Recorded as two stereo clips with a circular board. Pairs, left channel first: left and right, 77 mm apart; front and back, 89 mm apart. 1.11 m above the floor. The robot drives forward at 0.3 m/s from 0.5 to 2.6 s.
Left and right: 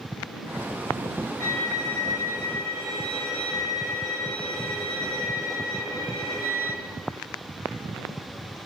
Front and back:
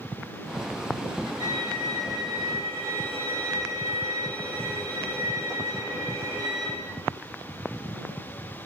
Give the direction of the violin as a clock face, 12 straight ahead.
6 o'clock.